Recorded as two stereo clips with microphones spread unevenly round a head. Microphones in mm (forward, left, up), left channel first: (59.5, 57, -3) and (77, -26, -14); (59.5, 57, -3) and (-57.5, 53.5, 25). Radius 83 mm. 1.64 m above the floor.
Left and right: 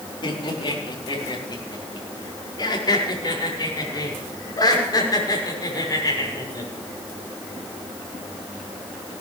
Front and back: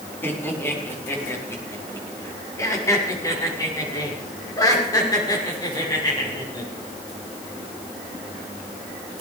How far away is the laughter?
About 4 m.